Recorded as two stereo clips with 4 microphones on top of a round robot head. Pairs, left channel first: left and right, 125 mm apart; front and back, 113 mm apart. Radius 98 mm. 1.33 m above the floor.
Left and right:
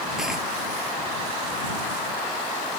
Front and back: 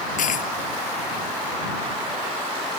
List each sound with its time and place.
0.2 s a dropped coin: 5° right